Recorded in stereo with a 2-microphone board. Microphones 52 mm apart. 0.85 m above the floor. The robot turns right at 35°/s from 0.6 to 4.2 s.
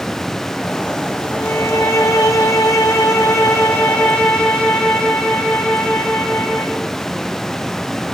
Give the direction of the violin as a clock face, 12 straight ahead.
10 o'clock.